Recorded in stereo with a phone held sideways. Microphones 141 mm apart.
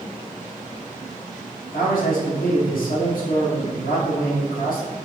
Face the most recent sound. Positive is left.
turn(degrees=80)